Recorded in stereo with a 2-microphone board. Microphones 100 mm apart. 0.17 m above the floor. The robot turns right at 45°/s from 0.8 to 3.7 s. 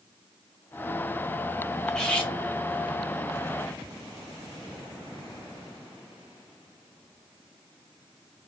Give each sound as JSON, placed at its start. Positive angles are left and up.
{"t": 1.9, "sound": "cutlery clinking", "side_deg": 5, "distance_m": 1.2}